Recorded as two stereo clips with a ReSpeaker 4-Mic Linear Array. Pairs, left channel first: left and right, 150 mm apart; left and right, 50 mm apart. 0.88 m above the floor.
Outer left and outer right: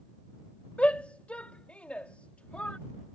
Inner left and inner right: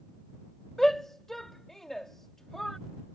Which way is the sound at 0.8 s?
10° left (ahead or behind).